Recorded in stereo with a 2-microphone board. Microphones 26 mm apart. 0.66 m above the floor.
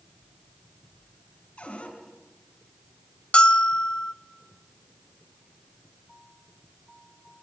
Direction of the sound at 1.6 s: 45° left (ahead or behind).